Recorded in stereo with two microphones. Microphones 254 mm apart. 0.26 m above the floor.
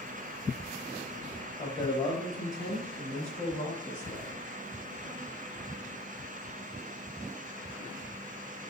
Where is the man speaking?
20° left (ahead or behind), 1.0 m; by 4.4 s 35° left (ahead or behind), 1.7 m.